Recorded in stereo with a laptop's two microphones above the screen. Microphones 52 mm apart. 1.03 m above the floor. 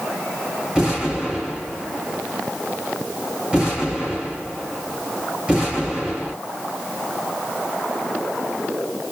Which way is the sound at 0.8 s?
15° right (ahead or behind).